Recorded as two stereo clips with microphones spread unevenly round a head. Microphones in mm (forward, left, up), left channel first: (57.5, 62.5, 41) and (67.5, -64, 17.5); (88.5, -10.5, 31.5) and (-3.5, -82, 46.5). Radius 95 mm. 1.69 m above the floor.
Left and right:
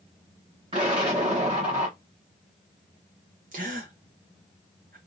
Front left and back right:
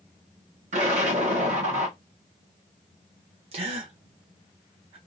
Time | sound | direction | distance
0.7 | an explosion | 155° right | 1.1 m
3.5 | a gasp | 130° right | 0.9 m